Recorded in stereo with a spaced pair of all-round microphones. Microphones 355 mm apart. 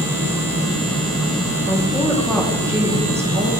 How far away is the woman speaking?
About 1.6 m.